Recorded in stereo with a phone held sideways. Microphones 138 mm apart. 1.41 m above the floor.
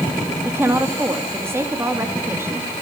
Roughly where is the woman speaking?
Centre.